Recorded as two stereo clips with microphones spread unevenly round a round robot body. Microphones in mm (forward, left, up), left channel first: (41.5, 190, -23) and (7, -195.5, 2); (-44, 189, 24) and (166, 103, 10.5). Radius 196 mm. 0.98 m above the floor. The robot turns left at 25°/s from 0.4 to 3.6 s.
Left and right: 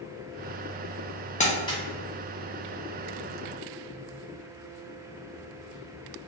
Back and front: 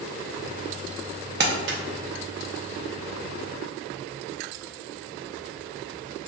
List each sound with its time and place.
1.4 s crumpling: 15° left, 0.6 m; by 1.8 s 5° left, 0.6 m